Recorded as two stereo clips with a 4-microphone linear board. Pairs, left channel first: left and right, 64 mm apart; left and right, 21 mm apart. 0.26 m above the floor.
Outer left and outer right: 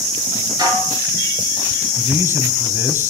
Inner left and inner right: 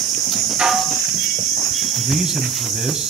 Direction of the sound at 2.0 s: 35° right (ahead or behind).